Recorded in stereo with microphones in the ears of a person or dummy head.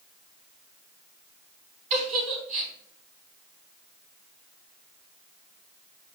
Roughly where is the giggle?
Right.